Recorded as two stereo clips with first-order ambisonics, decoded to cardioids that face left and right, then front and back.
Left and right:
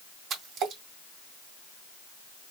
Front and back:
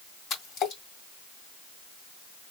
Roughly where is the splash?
Ahead right.